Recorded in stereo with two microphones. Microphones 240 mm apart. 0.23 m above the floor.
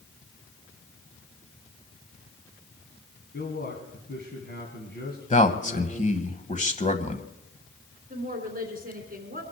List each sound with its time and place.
3.3 s a man speaking: 45° left (ahead or behind), 2 m
5.3 s a man speaking: 30° left (ahead or behind), 1.2 m
8.1 s a woman speaking: 40° right (ahead or behind), 3 m